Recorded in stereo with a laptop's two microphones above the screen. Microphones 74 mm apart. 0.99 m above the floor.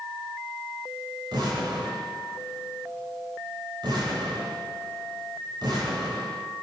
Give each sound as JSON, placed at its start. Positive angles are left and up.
{"t": 1.3, "sound": "an explosion", "side_deg": -85, "distance_m": 4.5}